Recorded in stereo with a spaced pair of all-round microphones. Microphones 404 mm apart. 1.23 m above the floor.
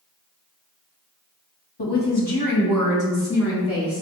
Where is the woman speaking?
80° left, 1.0 m; by 4.0 s 35° left (ahead or behind), 2 m.